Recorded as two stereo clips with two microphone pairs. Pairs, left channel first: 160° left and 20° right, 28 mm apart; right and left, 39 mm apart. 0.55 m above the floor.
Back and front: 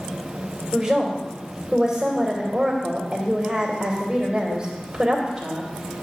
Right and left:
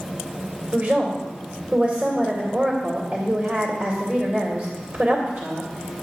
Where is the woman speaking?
50° left, 2 m.